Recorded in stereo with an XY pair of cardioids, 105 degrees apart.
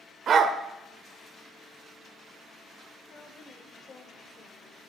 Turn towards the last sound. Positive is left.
turn(degrees=45)